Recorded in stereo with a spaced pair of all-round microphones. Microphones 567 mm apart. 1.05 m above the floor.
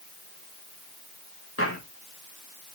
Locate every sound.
1.6 s footsteps: 25° left (ahead or behind), 4.5 m